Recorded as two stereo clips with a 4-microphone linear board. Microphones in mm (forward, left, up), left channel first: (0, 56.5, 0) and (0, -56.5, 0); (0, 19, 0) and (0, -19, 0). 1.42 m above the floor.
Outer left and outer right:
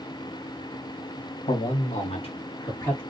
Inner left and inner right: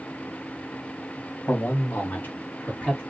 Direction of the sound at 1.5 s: 75° left (ahead or behind).